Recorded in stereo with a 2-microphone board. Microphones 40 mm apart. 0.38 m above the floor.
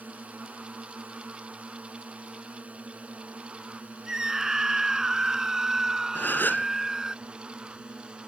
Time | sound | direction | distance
0.0 | a drone | 40° right (ahead or behind) | ?
4.1 | a scream | 15° right (ahead or behind) | ?
6.2 | a gasp | 60° left (ahead or behind) | ?